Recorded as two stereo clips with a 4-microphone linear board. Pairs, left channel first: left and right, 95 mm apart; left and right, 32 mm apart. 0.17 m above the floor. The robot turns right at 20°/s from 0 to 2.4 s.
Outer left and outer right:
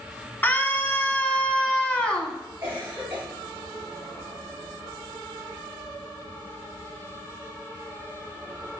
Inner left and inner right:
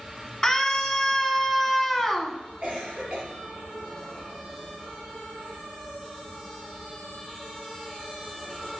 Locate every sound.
0.4 s a scream: 25° left (ahead or behind), 1.2 m; by 2.4 s 10° left (ahead or behind), 1.2 m
2.6 s a cough: 25° right (ahead or behind), 4 m